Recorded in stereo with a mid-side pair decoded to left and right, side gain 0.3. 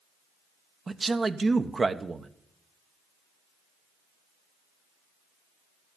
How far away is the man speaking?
About 1.1 m.